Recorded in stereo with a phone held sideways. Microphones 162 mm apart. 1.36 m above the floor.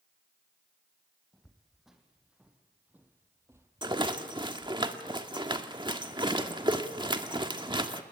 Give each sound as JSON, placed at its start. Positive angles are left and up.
{"t": 1.3, "sound": "footsteps", "side_deg": 0, "distance_m": 3.5}
{"t": 3.8, "sound": "a rattle", "side_deg": -25, "distance_m": 1.5}